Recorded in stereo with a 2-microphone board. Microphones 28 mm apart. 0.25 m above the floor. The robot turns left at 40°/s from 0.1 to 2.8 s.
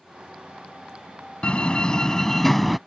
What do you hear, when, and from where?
1.4 s a door slam: 55° left; by 2.8 s straight ahead